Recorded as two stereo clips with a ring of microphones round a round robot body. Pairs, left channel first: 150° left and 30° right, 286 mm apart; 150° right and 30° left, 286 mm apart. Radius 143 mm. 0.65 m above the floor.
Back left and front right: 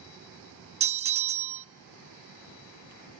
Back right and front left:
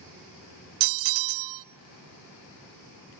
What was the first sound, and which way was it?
A bell, 35° left.